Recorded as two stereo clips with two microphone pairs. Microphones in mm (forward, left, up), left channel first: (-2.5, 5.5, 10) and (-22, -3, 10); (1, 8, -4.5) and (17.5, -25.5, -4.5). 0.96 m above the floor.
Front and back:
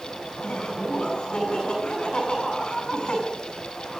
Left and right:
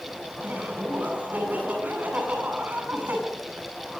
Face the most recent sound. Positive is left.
turn(degrees=-15)